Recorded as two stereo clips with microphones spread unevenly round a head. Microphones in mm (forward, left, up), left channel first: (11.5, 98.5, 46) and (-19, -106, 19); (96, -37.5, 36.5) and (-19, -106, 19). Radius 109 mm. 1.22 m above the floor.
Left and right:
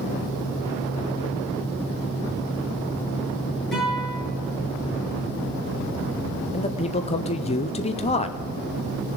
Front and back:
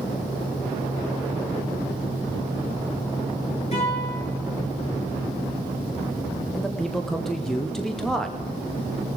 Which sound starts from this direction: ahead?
A guitar, at 3.7 s.